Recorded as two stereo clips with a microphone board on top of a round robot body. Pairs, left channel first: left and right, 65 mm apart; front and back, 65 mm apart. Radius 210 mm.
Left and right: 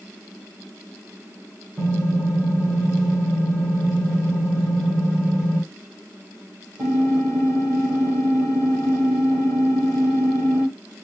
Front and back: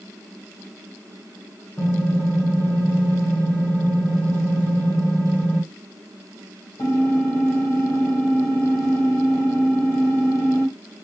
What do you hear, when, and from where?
1.8 s typing on a keyboard: 30° right, 1.4 m